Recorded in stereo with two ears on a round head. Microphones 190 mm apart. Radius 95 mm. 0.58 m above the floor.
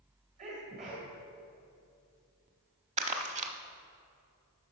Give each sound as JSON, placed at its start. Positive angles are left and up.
{"t": 0.4, "sound": "a sneeze", "side_deg": -35, "distance_m": 2.0}
{"t": 3.0, "sound": "crumpling", "side_deg": -30, "distance_m": 0.8}